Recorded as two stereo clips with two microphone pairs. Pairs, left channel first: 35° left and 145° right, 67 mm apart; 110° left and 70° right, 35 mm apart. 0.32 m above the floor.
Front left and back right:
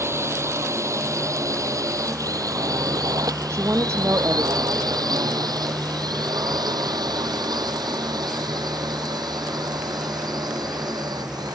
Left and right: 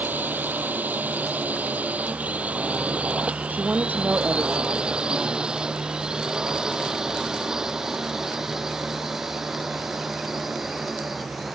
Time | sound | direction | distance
0.0 | a drone | 100° right | ?
3.5 | a woman speaking | 100° right | ?